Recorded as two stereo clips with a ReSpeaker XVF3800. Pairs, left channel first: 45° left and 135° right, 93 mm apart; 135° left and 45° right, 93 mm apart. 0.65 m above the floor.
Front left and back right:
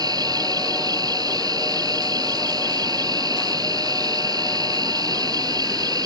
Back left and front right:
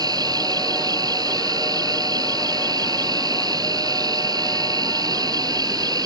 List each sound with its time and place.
0.0 s an insect: 90° right